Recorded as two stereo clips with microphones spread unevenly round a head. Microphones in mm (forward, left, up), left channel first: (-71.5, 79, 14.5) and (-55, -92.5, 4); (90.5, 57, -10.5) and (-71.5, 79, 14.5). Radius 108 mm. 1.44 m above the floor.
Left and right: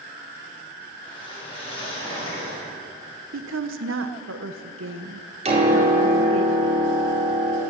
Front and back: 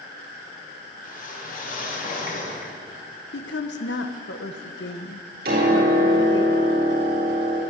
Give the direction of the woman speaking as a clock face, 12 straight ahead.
2 o'clock.